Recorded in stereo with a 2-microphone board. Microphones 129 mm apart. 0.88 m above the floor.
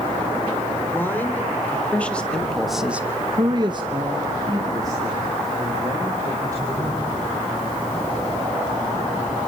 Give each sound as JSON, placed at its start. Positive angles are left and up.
{"t": 0.9, "sound": "a man speaking", "side_deg": 15, "distance_m": 3.5}